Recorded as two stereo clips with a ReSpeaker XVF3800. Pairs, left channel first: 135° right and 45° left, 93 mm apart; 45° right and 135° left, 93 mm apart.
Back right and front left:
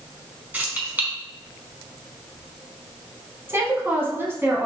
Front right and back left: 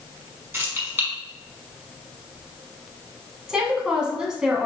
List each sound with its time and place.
0.5 s keys jangling: 100° left, 1.2 m
3.5 s a woman speaking: 60° left, 1.1 m